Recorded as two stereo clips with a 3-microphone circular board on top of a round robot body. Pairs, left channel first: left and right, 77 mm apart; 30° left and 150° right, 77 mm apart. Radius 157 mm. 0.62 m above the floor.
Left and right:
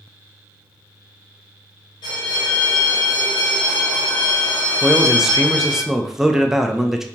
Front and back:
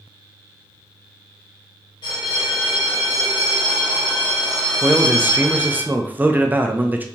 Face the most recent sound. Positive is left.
turn(degrees=-165)